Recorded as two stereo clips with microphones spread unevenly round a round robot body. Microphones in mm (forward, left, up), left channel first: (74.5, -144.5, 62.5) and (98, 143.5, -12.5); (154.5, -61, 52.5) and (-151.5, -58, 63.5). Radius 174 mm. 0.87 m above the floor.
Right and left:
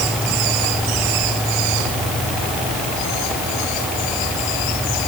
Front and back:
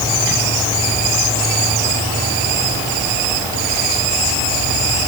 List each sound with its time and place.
Only background noise.